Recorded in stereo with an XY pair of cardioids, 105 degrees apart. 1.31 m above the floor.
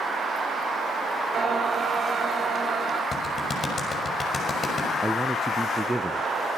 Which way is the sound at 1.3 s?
45° right.